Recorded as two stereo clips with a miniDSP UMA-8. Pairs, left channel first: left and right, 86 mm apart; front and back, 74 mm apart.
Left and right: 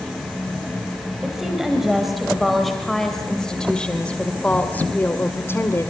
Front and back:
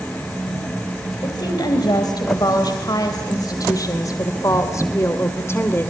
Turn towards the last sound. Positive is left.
turn(degrees=45)